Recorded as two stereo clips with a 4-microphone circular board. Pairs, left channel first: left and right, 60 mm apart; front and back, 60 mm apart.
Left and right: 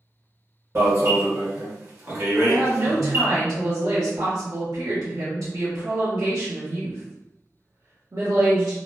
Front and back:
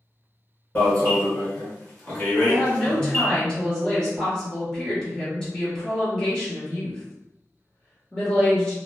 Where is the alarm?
60° right, 1.4 m.